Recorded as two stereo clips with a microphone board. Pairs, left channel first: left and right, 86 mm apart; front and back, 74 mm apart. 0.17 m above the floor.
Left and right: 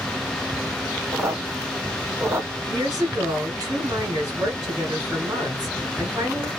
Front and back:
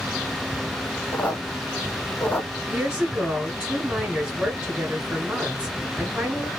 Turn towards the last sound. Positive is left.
turn(degrees=-110)